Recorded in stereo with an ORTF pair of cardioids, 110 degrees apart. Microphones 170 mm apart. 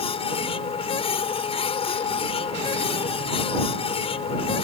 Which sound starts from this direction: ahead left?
A machine running, at 0.0 s.